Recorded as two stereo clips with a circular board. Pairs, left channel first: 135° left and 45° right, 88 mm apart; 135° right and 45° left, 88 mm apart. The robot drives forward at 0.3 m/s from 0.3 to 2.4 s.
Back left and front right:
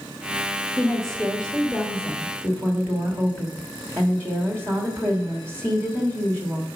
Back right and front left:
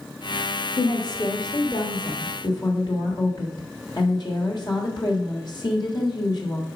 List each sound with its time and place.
0.8 s a woman speaking: 140° right, 1.1 m; by 6.7 s 155° right, 1.4 m